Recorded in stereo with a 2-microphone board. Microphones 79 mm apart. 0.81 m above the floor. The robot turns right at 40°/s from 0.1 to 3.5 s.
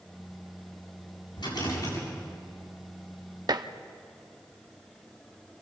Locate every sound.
1.4 s a rattle: 75° left (ahead or behind), 8 m; by 2.0 s 50° left (ahead or behind), 8 m
3.5 s dishes clattering: 60° right (ahead or behind), 0.8 m